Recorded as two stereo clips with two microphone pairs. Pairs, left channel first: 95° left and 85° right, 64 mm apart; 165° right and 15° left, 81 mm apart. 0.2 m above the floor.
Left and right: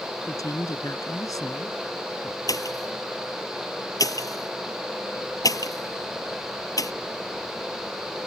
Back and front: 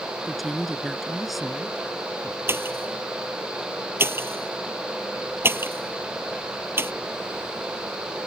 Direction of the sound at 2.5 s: 75° left.